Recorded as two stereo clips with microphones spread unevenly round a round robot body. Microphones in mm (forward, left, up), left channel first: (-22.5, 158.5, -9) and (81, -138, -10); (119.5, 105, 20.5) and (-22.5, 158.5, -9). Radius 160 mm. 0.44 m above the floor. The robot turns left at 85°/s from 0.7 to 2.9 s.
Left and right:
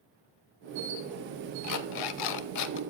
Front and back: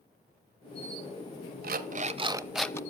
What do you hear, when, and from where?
1.6 s an alarm clock: 155° left, 0.8 m; by 2.8 s 55° left, 0.8 m